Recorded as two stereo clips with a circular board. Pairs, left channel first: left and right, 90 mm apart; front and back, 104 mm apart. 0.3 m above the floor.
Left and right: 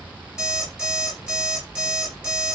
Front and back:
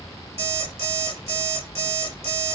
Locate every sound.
0.4 s an alarm clock: 170° right, 3 m